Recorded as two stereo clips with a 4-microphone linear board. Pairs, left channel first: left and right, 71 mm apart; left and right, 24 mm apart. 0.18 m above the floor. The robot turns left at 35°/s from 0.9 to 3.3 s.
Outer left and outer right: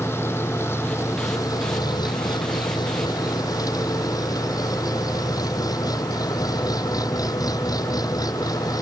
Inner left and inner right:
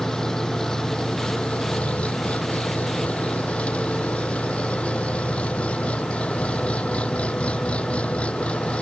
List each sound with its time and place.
0.0 s an engine running: 145° left; by 8.8 s 60° left